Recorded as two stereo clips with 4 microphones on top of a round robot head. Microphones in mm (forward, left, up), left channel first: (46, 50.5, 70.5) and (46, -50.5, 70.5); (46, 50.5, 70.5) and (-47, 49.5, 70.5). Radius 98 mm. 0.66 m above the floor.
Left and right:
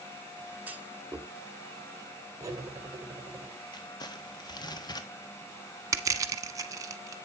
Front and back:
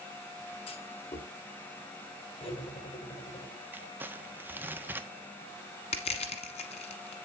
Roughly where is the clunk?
Ahead.